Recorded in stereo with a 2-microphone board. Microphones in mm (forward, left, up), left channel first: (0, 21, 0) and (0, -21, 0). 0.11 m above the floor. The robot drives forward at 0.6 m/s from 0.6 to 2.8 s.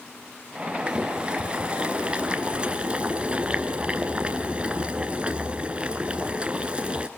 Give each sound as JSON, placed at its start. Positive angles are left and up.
{"t": 0.9, "sound": "boiling", "side_deg": -20, "distance_m": 2.0}